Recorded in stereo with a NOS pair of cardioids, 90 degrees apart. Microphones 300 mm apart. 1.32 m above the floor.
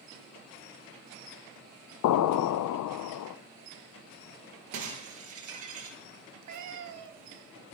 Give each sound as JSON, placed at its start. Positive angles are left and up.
{"t": 2.0, "sound": "an explosion", "azimuth_deg": 65, "distance_m": 0.7}
{"t": 4.7, "sound": "breaking glass", "azimuth_deg": -65, "distance_m": 6.0}
{"t": 6.4, "sound": "a cat meowing", "azimuth_deg": -65, "distance_m": 2.0}